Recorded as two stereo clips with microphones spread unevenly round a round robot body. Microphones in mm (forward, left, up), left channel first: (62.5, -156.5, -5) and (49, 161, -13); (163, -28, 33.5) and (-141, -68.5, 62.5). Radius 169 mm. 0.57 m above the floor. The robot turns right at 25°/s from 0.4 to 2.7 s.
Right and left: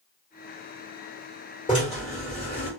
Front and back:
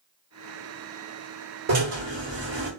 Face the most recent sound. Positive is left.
turn(degrees=-135)